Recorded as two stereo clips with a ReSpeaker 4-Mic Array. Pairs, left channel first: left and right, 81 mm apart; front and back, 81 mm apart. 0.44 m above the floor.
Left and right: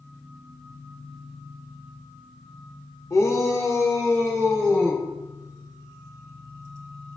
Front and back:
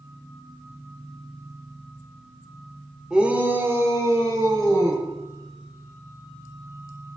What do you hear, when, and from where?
3.1 s a shout: 100° left, 1.4 m; by 5.0 s 150° left, 3.5 m